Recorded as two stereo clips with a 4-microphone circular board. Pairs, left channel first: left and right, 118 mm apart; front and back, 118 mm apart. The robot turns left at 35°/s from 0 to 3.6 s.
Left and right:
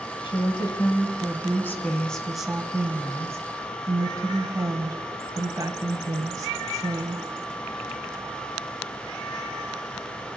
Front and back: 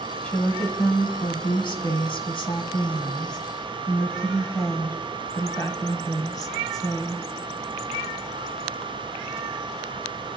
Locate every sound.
0.2 s a woman speaking: 75° left, 1.5 m; by 7.2 s 45° right, 1.5 m